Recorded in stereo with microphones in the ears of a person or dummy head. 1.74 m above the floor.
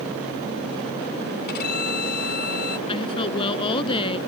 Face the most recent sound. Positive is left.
turn(degrees=25)  # may be behind; listen again after turning